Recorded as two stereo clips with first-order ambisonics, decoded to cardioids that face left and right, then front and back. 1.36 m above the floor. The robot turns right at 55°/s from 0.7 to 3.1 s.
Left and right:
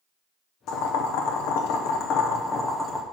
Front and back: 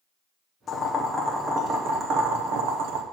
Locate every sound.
0.7 s boiling: 60° left, 0.8 m; by 3.0 s 170° right, 0.8 m